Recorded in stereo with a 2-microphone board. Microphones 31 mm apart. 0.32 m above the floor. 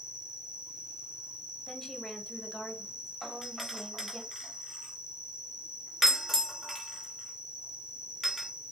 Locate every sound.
0.0 s an insect: 30° right (ahead or behind), 0.9 m
1.7 s a woman speaking: 10° left (ahead or behind), 1.1 m
3.2 s a doorbell: 5° left (ahead or behind), 1.7 m